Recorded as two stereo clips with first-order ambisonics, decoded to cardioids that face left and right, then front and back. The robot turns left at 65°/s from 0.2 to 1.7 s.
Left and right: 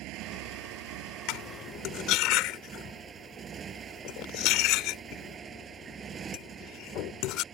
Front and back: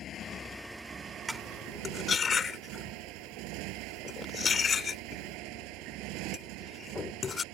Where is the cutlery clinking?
95° left; by 7.4 s 65° left.